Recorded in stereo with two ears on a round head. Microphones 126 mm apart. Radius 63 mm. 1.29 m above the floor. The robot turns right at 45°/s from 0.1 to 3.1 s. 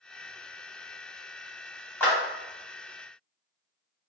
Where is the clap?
10° left (ahead or behind), 1.3 m; by 2.1 s 15° left (ahead or behind), 1.3 m.